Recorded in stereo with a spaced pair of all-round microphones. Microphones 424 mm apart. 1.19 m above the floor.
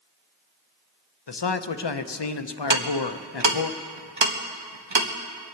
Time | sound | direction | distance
1.3 | a man speaking | 70° left (ahead or behind) | 0.7 m
2.7 | ticking | 80° right | 1.2 m